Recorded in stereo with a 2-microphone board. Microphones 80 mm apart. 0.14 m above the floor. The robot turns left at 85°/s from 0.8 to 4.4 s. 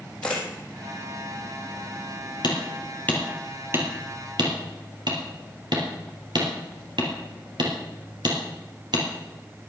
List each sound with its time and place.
0.2 s a camera shutter: 15° left (ahead or behind), 4 m
2.4 s hammering: 65° left (ahead or behind), 2.5 m; by 9.6 s 70° right (ahead or behind), 2.5 m